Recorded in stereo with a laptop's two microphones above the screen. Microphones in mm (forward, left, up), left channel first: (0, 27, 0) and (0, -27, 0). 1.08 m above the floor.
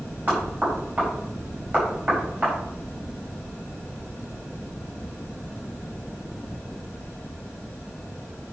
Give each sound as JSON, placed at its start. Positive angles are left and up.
{"t": 0.3, "sound": "knocking", "side_deg": -30, "distance_m": 5.0}